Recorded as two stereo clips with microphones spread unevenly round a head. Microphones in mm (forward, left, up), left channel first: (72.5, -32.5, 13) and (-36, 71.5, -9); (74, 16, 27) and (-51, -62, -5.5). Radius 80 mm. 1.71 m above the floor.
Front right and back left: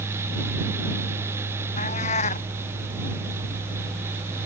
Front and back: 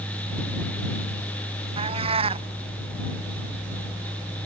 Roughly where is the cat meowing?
Right.